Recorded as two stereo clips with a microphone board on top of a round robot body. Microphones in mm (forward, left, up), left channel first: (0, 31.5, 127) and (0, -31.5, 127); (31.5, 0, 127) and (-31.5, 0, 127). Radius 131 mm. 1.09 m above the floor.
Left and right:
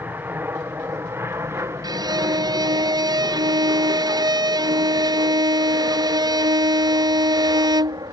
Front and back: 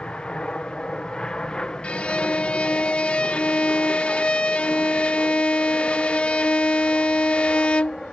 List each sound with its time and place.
0.0 s an aircraft: 65° right; by 8.1 s 85° right
1.8 s a violin: 75° right